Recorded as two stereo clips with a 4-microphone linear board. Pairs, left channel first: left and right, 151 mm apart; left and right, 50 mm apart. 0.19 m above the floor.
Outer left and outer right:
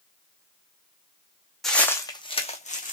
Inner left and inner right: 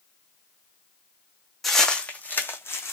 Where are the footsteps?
Centre (ahead or behind), 0.7 m; by 2.9 s 60° left (ahead or behind), 0.8 m.